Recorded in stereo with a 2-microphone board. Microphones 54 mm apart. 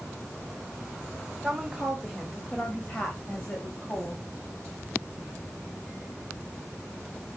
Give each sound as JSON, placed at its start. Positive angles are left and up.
{"t": 1.4, "sound": "a woman speaking", "side_deg": -10, "distance_m": 2.0}